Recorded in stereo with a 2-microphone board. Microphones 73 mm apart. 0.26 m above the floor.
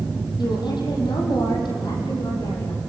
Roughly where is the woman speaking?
Left.